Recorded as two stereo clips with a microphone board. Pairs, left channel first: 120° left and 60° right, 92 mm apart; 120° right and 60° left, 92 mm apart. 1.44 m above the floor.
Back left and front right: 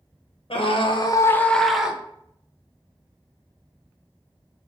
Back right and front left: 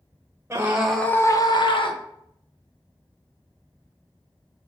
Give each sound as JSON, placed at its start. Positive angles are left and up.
{"t": 0.5, "sound": "a scream", "azimuth_deg": 125, "distance_m": 0.9}